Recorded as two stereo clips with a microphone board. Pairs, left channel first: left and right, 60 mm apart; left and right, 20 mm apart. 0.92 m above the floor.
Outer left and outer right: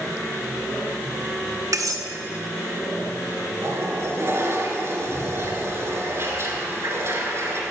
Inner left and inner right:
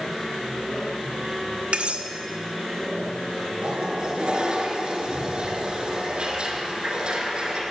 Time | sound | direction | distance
1.7 | cutlery clinking | 65° right (ahead or behind) | 0.8 m
3.6 | a toilet flushing | 50° right (ahead or behind) | 1.9 m